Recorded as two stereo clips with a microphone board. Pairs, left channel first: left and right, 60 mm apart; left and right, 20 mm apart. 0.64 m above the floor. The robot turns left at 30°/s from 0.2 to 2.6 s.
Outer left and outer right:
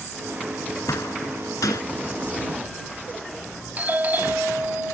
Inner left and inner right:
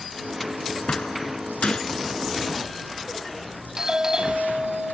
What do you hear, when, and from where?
0.9 s a door slam: 65° left (ahead or behind); by 1.8 s 85° left
3.8 s a doorbell: 30° right (ahead or behind)